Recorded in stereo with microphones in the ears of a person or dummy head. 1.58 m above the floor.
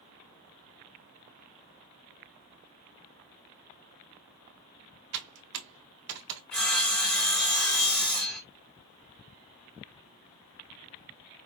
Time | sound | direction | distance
5.1 | typing on a keyboard | 70° right (ahead or behind) | 1.3 m
6.5 | sawing | 5° left (ahead or behind) | 1.0 m